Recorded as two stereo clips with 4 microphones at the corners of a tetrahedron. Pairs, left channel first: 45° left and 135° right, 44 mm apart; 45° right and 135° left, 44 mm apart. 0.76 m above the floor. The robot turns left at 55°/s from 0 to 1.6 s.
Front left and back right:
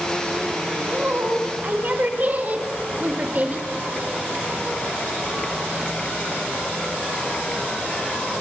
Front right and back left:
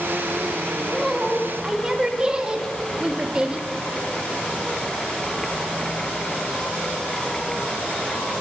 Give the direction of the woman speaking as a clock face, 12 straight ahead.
4 o'clock.